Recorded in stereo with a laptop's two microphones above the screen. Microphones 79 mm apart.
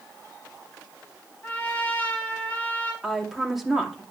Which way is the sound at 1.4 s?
20° left (ahead or behind).